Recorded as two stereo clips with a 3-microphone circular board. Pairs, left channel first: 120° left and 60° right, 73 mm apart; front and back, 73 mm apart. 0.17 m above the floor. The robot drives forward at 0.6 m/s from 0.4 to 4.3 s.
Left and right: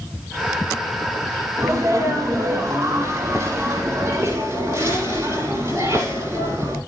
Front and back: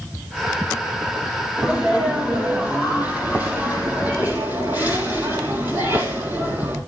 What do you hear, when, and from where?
1.6 s a sneeze: 110° right, 5.5 m; by 6.8 s 125° right, 6 m